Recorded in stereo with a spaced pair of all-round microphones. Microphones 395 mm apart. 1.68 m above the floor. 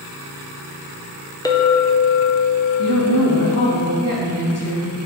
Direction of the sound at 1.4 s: 10° left (ahead or behind).